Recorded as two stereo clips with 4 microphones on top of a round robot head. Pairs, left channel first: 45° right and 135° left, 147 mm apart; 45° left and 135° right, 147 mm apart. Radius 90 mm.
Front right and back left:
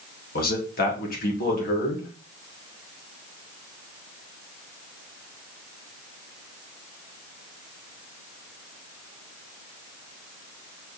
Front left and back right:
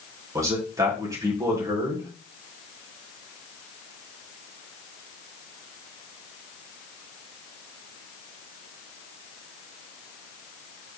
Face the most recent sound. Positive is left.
turn(degrees=-65)